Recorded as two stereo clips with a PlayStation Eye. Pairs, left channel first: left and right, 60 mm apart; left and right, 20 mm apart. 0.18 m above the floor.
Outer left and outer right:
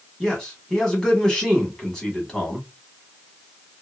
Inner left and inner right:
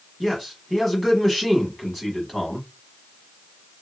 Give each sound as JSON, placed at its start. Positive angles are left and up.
{"t": 0.2, "sound": "a man speaking", "side_deg": 10, "distance_m": 1.3}